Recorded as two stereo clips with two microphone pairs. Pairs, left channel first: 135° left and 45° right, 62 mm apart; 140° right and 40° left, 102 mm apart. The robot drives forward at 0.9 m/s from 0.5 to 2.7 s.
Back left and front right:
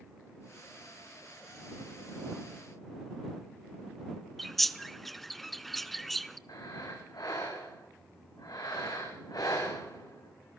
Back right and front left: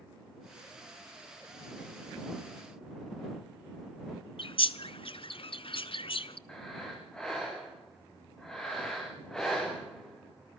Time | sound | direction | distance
4.4 | a bird | 130° right | 0.8 m
6.5 | breathing | 140° left | 7 m